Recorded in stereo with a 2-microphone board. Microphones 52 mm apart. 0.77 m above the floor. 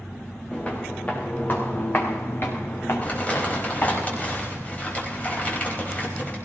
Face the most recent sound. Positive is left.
turn(degrees=30)  # may be behind; listen again after turning